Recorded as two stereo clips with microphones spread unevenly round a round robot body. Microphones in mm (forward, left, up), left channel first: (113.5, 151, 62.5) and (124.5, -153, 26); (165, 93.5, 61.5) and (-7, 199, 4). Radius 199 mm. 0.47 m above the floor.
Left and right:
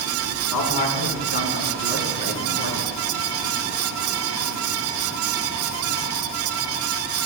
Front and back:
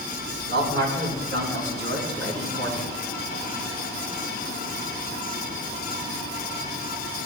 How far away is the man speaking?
About 4 m.